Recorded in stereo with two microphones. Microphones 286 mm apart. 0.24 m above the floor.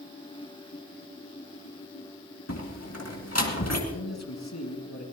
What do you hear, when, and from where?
2.5 s a door slam: 55° left (ahead or behind), 2 m
3.9 s a man speaking: 65° left (ahead or behind), 2.5 m